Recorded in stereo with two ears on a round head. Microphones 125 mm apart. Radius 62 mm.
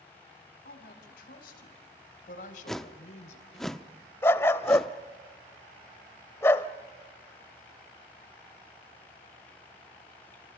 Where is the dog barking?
20° left (ahead or behind), 0.9 m.